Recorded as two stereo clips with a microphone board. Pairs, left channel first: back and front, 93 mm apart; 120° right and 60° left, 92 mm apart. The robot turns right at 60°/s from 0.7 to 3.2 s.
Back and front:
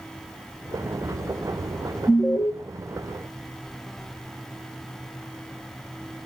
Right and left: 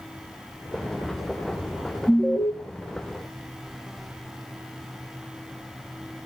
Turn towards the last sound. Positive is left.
turn(degrees=-115)